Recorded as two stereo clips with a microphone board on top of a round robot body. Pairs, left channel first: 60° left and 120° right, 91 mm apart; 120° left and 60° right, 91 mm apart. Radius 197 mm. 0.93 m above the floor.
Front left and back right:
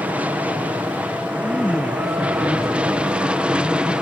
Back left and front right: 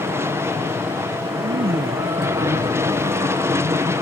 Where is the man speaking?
25° right.